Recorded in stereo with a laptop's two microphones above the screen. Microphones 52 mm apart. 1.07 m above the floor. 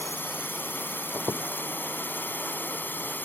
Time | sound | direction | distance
0.0 | a drone | 45° left (ahead or behind) | ?
1.1 | a squeak | 75° right (ahead or behind) | ?